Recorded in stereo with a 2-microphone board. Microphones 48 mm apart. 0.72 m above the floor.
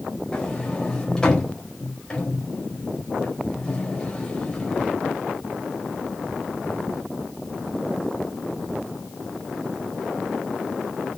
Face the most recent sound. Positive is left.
turn(degrees=20)  # may be behind; listen again after turning